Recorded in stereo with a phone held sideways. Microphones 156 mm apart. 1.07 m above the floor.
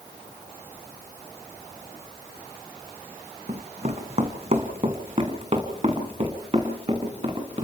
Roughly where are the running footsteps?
Right.